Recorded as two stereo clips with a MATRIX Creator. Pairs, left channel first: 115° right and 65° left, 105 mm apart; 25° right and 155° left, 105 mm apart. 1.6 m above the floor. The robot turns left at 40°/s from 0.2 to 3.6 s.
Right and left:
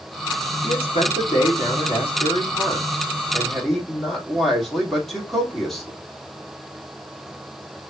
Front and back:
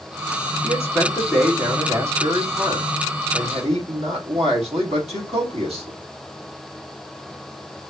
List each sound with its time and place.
0.6 s a man speaking: 80° right, 2.5 m; by 6.0 s 160° left, 2.5 m